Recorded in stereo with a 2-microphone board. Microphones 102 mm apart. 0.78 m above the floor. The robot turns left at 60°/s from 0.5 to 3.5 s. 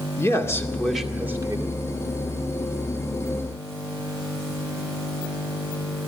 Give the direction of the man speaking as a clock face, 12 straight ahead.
11 o'clock.